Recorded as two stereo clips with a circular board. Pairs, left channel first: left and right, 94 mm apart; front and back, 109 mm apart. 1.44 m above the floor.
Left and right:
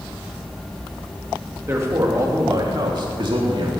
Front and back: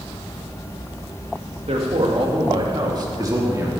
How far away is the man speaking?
About 2 m.